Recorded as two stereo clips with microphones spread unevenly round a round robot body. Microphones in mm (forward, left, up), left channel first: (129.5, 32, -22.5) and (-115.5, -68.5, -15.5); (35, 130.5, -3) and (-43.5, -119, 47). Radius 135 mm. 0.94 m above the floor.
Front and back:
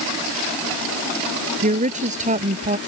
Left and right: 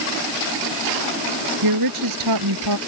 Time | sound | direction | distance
1.6 | a woman speaking | 95° right | ?